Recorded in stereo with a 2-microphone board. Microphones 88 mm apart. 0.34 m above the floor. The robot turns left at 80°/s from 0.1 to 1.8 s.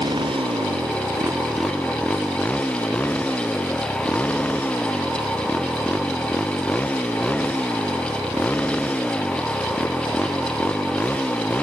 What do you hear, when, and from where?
0.0 s a motorcycle: 60° right; by 11.6 s 165° left